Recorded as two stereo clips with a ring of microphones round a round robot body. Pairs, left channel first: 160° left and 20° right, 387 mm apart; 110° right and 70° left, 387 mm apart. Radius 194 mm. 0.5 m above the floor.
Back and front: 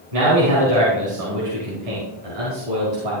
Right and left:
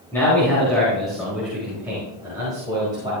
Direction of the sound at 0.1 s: 30° right.